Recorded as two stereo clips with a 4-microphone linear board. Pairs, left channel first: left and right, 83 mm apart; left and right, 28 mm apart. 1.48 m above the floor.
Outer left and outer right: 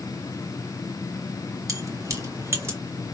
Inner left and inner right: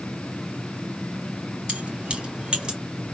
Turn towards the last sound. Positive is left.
turn(degrees=-30)  # may be behind; listen again after turning